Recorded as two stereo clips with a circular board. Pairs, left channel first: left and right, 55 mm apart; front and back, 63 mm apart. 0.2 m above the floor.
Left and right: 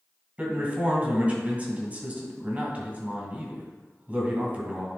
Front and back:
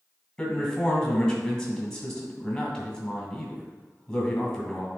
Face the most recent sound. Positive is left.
turn(degrees=-70)